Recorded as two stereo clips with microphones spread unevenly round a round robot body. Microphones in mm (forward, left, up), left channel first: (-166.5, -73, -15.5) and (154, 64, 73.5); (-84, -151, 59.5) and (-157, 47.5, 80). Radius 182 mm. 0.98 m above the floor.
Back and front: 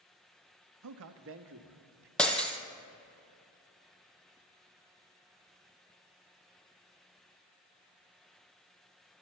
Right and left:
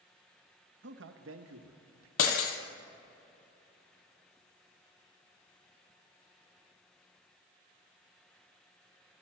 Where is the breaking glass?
60° right, 1.8 m.